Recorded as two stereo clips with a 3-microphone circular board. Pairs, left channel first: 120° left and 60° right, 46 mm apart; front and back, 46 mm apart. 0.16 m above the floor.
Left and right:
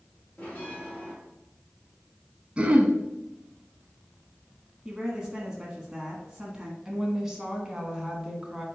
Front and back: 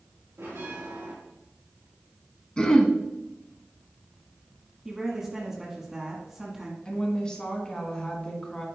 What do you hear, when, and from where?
0.4 s a bell: 175° left, 3 m
2.6 s throat clearing: 40° right, 0.9 m
4.8 s a woman speaking: 115° right, 1.2 m
6.8 s a woman speaking: 10° right, 1.4 m